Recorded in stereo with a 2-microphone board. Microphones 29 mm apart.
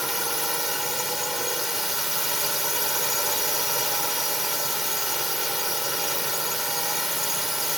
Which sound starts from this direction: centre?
A drone, at 0.0 s.